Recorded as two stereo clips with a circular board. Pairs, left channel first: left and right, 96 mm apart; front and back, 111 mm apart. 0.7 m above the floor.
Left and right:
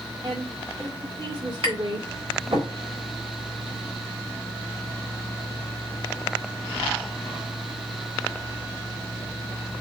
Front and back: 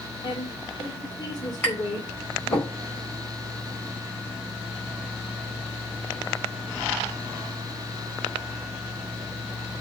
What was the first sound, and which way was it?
A woman speaking, 45° right.